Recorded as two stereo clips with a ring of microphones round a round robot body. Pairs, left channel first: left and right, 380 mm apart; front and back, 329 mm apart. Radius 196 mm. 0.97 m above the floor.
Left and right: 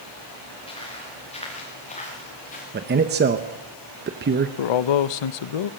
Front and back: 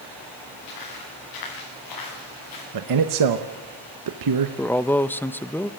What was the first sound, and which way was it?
Footsteps, 15° left.